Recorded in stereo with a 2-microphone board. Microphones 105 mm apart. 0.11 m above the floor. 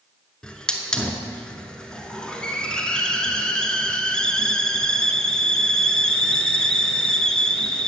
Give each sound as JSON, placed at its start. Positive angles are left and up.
{"t": 0.4, "sound": "a hiss", "side_deg": 5, "distance_m": 0.8}